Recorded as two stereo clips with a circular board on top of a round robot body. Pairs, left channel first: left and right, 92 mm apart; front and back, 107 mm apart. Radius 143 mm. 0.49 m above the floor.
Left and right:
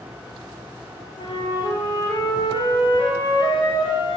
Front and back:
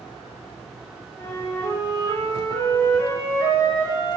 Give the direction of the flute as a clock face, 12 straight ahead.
10 o'clock.